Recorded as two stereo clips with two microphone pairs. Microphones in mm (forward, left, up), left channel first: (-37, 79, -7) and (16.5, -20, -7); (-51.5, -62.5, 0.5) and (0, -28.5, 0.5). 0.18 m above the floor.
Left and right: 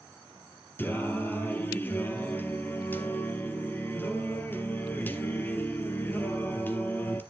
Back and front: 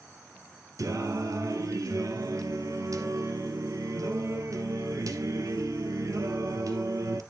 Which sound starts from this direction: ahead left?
Singing, at 0.8 s.